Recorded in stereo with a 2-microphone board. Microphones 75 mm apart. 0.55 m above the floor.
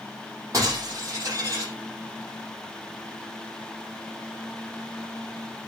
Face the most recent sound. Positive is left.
turn(degrees=-40)  # may be behind; listen again after turning